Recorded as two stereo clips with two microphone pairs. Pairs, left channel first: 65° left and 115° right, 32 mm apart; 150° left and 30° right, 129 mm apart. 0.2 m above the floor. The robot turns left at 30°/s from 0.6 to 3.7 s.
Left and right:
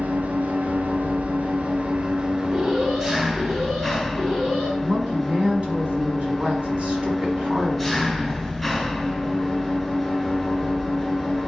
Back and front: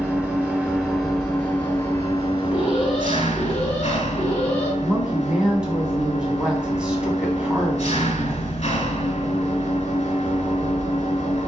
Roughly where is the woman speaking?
Right.